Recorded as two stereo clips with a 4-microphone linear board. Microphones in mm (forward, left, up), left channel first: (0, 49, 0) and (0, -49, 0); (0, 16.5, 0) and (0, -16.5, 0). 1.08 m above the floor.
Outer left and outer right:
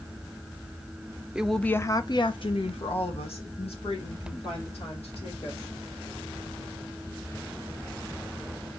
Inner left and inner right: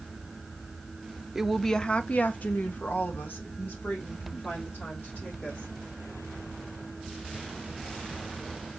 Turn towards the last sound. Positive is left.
turn(degrees=85)